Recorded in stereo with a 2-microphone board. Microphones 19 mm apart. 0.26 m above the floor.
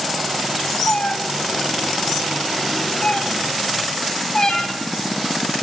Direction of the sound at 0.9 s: 80° left.